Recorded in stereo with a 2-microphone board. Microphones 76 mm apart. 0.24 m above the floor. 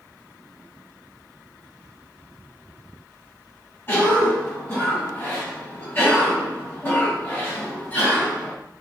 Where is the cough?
30° left (ahead or behind), 1.7 m.